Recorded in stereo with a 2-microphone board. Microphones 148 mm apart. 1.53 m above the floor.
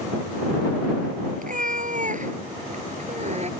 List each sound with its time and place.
1.4 s a cat meowing: 65° right (ahead or behind); by 3.5 s 50° right (ahead or behind)